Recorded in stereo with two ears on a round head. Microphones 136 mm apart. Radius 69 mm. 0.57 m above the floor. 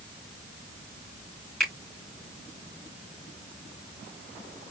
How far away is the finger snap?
About 3.5 m.